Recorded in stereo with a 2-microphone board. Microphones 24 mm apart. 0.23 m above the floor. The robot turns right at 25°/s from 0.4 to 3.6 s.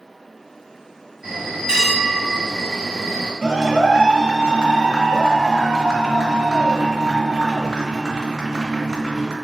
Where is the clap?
25° right (ahead or behind), 1.7 m.